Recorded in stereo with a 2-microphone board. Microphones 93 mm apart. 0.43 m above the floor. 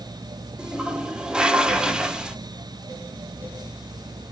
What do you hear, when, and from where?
0.6 s a toilet flushing: 10° right (ahead or behind), 0.8 m